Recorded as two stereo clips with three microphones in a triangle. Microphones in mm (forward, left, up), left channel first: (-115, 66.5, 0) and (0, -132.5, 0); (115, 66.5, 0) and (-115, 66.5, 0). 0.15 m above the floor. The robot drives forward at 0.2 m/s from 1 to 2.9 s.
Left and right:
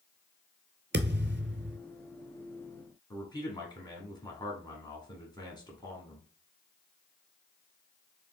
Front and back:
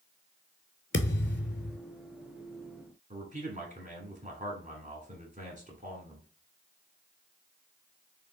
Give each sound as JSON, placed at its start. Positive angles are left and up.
{"t": 0.9, "sound": "a thud", "azimuth_deg": -30, "distance_m": 0.6}
{"t": 3.1, "sound": "a man speaking", "azimuth_deg": 175, "distance_m": 1.6}